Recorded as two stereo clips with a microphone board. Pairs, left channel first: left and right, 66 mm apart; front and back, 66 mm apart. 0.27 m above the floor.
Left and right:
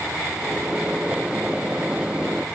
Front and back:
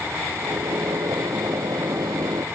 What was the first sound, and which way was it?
A microwave, 165° right.